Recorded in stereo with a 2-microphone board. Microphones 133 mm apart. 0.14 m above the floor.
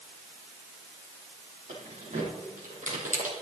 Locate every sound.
1.7 s keys jangling: 70° right (ahead or behind), 4.5 m; by 3.3 s 75° right (ahead or behind), 3.5 m